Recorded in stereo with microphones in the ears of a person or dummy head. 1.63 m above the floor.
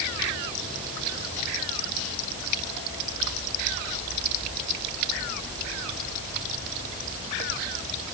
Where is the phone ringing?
I don't hear a phone ringing.